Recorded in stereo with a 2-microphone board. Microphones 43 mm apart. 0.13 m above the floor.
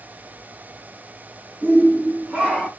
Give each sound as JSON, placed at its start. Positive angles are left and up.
{"t": 1.6, "sound": "a shout", "side_deg": -40, "distance_m": 1.8}